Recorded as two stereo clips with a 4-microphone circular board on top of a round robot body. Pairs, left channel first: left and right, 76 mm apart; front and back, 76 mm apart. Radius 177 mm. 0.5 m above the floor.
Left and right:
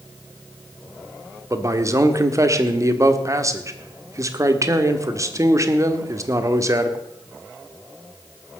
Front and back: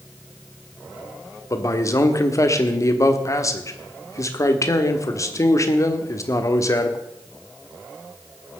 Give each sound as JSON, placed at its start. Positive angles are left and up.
{"t": 1.5, "sound": "a man speaking", "azimuth_deg": -45, "distance_m": 1.5}